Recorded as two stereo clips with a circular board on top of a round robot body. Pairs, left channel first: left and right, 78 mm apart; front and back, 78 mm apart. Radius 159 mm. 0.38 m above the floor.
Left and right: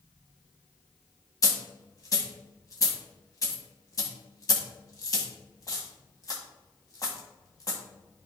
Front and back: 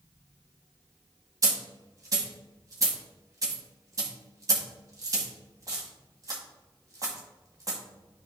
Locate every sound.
1.4 s a dropped coin: 135° left, 1.9 m